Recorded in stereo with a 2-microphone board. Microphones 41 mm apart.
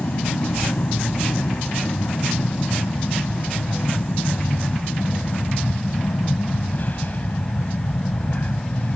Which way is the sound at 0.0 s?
50° left (ahead or behind).